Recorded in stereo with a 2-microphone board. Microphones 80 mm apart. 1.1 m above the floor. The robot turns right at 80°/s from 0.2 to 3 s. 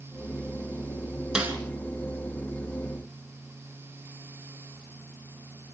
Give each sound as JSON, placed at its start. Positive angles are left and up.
{"t": 1.4, "sound": "a snare drum", "side_deg": -10, "distance_m": 3.5}